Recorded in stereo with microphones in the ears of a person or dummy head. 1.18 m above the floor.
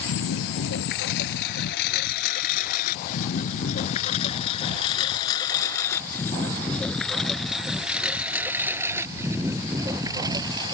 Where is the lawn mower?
70° left (ahead or behind); by 10.7 s 20° right (ahead or behind).